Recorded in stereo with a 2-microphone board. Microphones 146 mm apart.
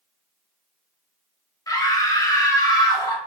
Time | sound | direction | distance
1.7 | a scream | 25° left (ahead or behind) | 0.8 m